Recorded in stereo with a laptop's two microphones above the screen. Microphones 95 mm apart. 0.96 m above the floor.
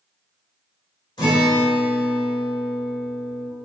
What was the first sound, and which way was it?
A guitar, 50° left (ahead or behind).